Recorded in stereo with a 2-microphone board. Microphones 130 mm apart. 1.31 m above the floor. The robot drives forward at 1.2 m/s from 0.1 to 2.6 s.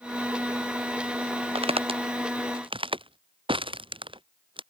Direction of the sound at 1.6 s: 45° right (ahead or behind).